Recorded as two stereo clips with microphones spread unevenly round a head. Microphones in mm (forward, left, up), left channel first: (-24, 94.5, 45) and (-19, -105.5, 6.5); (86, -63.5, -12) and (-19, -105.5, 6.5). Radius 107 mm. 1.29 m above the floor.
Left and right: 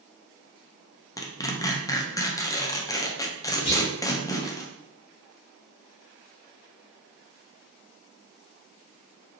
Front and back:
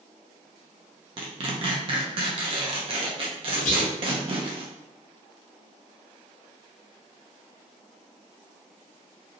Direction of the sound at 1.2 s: 170° left.